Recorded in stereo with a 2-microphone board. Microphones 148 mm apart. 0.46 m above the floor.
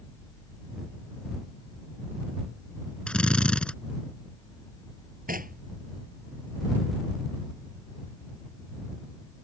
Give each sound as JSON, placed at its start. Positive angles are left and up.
{"t": 3.1, "sound": "a drill", "side_deg": 5}
{"t": 5.3, "sound": "knocking", "side_deg": -65}